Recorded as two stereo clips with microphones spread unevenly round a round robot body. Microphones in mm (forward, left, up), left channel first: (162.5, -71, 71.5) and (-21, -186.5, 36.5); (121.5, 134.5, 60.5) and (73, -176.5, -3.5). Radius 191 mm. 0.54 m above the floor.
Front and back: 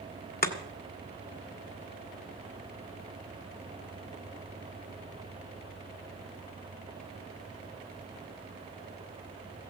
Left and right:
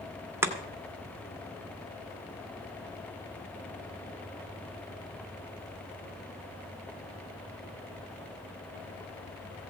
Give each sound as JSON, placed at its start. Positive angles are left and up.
{"t": 0.4, "sound": "chopping", "azimuth_deg": -15, "distance_m": 1.9}